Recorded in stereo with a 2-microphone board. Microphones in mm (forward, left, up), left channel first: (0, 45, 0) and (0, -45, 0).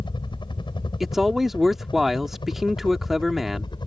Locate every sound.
0.0 s a helicopter: 60° left (ahead or behind); by 3.9 s 55° left (ahead or behind)
1.0 s a man speaking: 5° right (ahead or behind)